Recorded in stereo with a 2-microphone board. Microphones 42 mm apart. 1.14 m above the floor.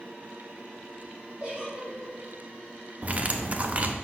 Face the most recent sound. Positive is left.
turn(degrees=-35)  # may be behind; listen again after turning